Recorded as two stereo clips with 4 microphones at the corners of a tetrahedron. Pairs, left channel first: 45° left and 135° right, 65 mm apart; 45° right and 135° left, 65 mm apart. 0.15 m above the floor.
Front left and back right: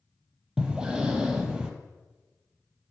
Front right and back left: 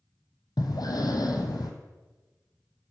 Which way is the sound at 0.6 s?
55° right.